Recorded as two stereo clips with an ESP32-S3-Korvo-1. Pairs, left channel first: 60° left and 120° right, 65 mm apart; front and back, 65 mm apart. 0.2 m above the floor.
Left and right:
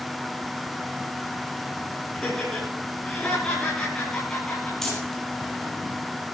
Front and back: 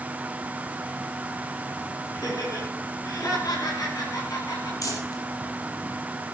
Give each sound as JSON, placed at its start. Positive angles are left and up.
{"t": 2.1, "sound": "laughter", "azimuth_deg": -20, "distance_m": 6.5}
{"t": 4.8, "sound": "crumpling", "azimuth_deg": -25, "distance_m": 5.0}